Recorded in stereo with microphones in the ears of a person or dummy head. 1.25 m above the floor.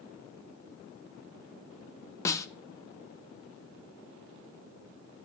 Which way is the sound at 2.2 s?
15° left (ahead or behind).